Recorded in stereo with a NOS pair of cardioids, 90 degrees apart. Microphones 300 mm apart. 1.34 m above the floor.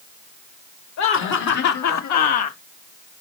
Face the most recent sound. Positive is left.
turn(degrees=70)